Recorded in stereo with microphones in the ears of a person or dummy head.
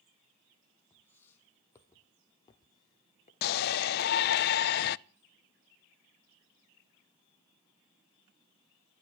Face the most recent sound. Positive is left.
turn(degrees=55)  # may be behind; listen again after turning